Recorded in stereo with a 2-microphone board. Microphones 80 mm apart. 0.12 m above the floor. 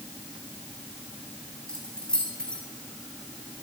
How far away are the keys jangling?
About 5 m.